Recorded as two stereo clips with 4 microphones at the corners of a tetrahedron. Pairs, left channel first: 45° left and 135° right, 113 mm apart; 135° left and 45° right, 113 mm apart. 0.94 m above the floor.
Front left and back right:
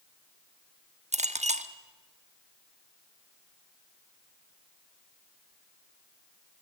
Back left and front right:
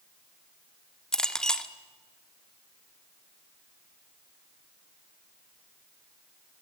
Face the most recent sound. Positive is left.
turn(degrees=-140)